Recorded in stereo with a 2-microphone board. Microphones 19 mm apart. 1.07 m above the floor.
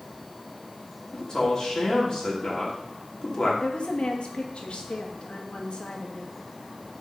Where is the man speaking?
35° left (ahead or behind), 2.5 m.